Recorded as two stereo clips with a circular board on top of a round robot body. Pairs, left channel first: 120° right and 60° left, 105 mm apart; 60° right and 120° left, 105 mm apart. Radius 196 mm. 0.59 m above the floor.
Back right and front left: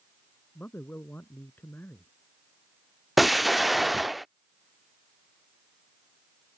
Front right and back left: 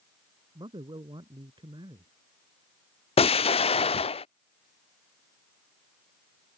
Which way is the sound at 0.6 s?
165° left.